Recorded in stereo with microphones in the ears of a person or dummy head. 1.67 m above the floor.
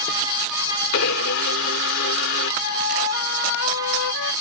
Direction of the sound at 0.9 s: 75° left (ahead or behind).